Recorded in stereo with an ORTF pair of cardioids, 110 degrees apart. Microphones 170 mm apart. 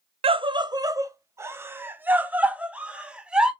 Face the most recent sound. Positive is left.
turn(degrees=-5)